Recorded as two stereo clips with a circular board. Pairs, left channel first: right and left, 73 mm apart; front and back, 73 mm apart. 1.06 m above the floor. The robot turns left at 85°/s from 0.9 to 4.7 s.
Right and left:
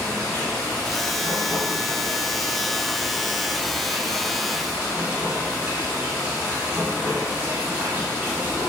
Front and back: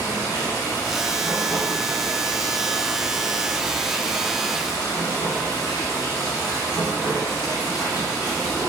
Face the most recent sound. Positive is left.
turn(degrees=20)